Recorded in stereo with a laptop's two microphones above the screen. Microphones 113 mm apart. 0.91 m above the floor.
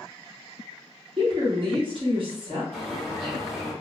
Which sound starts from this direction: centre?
A bird, at 2.7 s.